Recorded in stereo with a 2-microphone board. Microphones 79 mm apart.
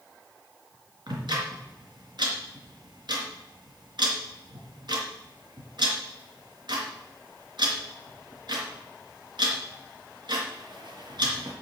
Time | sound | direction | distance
1.1 | ticking | 70° right (ahead or behind) | 3.5 m